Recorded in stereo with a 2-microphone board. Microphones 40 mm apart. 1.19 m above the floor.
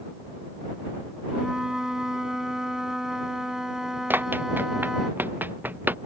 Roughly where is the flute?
Centre.